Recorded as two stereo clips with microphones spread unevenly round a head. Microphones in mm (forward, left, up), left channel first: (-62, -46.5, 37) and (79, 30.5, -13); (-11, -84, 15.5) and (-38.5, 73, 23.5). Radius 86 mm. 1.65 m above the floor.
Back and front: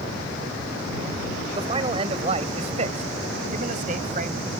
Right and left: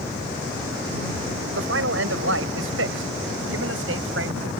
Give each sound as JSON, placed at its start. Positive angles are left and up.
{"t": 1.5, "sound": "a man speaking", "azimuth_deg": 95}